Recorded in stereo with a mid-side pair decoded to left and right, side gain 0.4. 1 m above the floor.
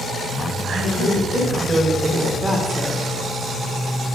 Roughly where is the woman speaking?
Ahead right.